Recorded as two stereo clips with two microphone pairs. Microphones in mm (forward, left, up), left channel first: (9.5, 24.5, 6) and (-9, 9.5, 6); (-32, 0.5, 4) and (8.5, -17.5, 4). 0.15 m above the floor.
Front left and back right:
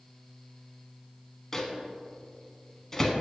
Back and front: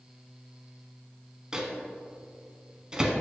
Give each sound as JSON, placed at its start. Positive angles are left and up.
{"t": 1.5, "sound": "a microwave", "azimuth_deg": 5, "distance_m": 0.8}